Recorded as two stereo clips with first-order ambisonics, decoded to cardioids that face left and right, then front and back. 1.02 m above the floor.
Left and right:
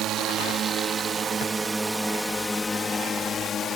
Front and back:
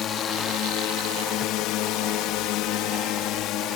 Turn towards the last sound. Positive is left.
turn(degrees=35)